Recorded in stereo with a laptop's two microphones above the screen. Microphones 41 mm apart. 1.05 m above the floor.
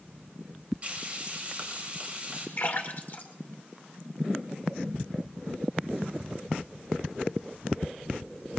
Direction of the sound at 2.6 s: 50° left (ahead or behind).